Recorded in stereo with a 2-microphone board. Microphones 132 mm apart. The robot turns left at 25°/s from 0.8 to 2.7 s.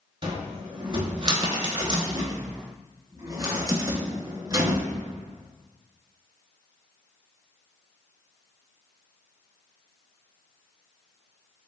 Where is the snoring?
No snoring in this recording.